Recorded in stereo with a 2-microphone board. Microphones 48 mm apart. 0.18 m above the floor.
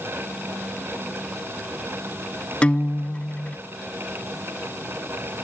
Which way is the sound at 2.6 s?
25° left (ahead or behind).